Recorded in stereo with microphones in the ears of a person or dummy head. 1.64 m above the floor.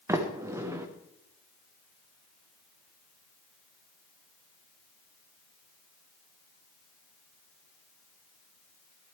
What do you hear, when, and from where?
0.1 s a sliding door: 15° right (ahead or behind), 1.0 m